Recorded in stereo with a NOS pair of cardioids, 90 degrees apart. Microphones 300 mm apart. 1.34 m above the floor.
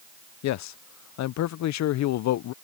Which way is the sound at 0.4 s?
65° left.